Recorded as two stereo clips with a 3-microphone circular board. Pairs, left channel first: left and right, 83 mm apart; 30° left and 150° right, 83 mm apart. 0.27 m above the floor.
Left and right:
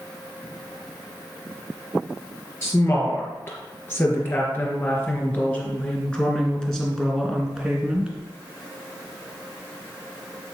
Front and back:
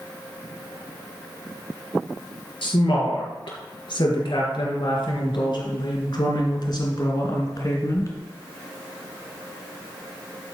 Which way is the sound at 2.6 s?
35° left.